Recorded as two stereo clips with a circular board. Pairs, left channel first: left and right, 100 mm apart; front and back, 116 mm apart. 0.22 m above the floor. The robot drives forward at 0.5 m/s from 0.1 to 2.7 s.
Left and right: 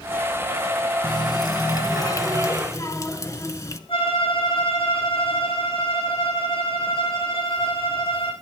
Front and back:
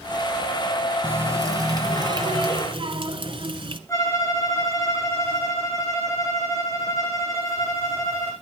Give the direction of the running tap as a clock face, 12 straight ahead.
8 o'clock.